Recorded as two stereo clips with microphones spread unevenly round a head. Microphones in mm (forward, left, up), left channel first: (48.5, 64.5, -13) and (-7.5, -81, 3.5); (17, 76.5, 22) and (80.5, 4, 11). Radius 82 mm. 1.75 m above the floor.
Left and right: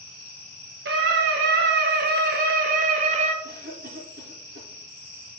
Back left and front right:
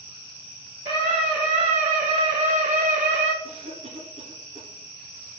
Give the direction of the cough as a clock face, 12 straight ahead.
3 o'clock.